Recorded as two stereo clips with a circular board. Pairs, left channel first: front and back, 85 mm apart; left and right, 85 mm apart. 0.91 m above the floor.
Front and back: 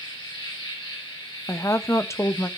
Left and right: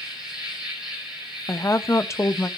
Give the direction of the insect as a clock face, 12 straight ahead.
12 o'clock.